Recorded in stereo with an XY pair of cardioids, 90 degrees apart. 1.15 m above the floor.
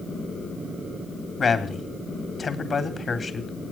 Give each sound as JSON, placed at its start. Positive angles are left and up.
{"t": 1.4, "sound": "a man speaking", "azimuth_deg": 45, "distance_m": 3.5}